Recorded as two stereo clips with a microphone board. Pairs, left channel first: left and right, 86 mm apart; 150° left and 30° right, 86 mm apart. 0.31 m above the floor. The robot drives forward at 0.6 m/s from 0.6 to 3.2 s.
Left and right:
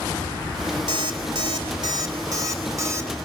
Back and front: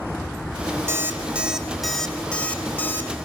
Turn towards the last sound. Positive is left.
turn(degrees=-145)